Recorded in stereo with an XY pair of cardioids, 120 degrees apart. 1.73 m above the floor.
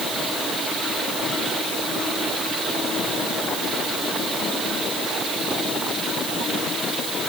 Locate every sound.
Only background noise.